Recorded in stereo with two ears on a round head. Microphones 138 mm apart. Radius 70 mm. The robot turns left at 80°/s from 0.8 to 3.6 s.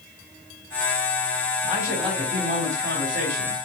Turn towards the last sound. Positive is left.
turn(degrees=-125)